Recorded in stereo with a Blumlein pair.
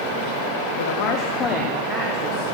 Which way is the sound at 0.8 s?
60° left.